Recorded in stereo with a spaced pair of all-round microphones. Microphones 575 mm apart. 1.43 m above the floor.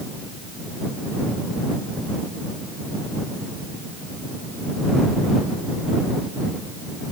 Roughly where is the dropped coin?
I don't hear a dropped coin.